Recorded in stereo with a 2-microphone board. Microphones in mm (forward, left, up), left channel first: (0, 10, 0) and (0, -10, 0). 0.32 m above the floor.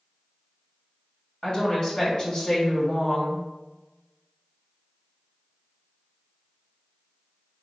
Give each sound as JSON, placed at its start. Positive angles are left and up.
{"t": 1.4, "sound": "a woman speaking", "side_deg": 45, "distance_m": 1.9}